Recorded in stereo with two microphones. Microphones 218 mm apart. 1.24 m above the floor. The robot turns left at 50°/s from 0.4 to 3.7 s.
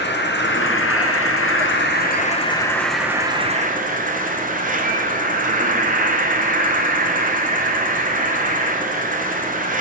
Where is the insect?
125° left, 0.7 m; by 9.8 s 40° right, 0.7 m.